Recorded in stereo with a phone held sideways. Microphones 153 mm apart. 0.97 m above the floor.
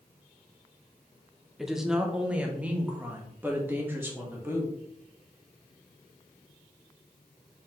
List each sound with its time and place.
1.6 s a woman speaking: centre (ahead or behind), 0.9 m; by 4.7 s 15° right (ahead or behind), 2.5 m